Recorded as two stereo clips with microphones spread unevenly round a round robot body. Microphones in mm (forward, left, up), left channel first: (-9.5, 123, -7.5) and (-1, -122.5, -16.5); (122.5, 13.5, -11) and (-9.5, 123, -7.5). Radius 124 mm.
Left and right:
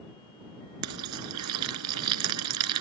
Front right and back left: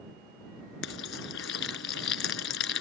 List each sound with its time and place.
0.8 s frying: 65° right